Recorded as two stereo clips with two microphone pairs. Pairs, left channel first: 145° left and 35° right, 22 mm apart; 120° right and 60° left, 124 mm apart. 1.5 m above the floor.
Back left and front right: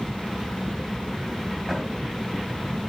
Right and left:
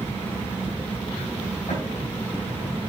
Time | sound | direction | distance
1.7 | a drawer | 125° right | 4 m